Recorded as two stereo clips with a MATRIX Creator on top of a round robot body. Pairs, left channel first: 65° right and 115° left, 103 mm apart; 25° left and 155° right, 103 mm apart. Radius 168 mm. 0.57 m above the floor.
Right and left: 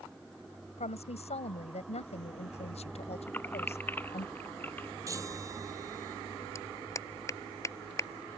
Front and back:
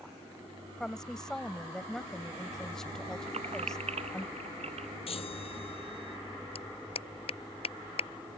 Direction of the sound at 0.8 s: 60° right.